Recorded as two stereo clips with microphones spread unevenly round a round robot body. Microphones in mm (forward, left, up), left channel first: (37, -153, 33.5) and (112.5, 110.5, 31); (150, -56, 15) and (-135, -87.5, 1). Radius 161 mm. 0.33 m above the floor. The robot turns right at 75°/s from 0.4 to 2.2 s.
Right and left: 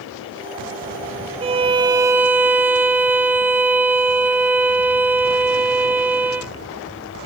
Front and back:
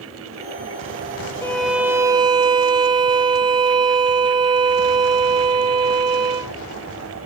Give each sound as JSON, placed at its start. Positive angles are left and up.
{"t": 1.4, "sound": "a violin", "azimuth_deg": 85, "distance_m": 0.6}